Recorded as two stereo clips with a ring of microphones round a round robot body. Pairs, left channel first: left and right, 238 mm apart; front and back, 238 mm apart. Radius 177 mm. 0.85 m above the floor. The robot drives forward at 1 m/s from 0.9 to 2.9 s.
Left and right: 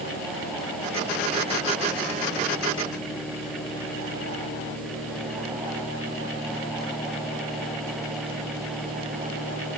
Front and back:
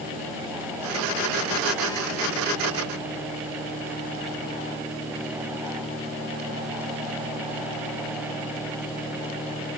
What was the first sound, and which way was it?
Only background noise.